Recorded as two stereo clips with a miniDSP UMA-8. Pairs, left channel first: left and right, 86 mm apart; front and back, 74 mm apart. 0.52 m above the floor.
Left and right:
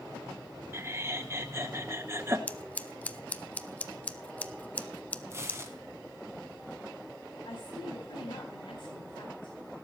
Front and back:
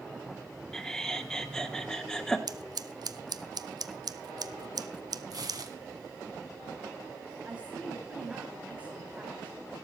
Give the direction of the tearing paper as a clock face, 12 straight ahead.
5 o'clock.